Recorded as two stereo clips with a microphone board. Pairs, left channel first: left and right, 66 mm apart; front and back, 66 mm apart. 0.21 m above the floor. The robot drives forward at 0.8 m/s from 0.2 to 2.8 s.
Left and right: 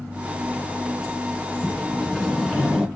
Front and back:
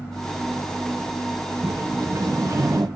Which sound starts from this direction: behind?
A sliding door, at 1.6 s.